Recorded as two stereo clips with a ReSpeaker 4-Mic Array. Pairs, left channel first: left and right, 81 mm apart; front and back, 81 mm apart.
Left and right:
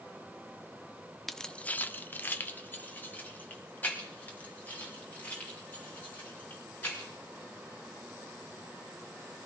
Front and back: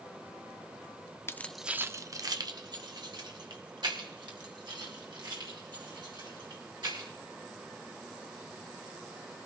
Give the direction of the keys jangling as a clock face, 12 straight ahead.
12 o'clock.